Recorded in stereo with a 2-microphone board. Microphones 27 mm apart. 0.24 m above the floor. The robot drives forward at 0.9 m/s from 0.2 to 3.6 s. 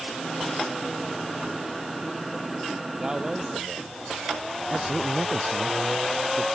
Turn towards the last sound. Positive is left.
turn(degrees=-30)  # may be behind; listen again after turning